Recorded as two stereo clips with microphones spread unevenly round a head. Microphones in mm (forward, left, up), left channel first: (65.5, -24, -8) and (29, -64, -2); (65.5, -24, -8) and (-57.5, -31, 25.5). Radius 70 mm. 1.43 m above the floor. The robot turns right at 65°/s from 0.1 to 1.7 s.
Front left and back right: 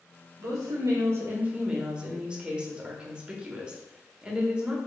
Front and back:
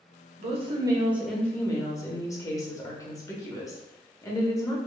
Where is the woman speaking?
145° right, 1.1 m; by 4.8 s 60° right, 1.1 m.